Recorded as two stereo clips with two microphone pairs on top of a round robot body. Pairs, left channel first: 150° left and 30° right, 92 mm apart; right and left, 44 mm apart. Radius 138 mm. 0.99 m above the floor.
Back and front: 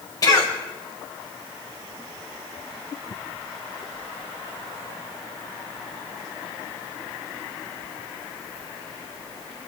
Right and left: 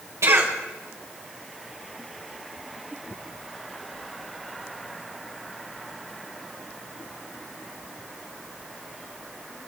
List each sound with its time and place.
0.2 s a cough: 105° left, 5 m